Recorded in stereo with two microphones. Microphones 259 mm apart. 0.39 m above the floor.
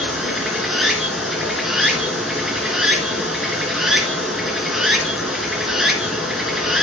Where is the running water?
Centre (ahead or behind), 3 m.